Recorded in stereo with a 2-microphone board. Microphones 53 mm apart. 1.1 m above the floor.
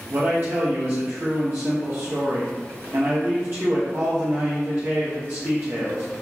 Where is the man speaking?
50° right (ahead or behind), 1.0 m.